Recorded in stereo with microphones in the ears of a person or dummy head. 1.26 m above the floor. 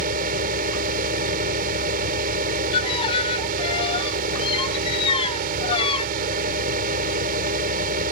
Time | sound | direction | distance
0.0 | a fan | 50° right (ahead or behind) | ?
2.7 | a violin | 25° left (ahead or behind) | ?